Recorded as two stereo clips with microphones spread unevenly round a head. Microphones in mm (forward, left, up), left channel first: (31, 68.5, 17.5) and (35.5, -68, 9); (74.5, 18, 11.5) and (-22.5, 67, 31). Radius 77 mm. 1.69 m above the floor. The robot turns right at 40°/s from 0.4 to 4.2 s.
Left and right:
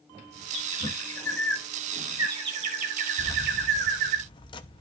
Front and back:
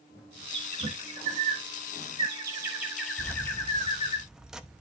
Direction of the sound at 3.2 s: 45° left.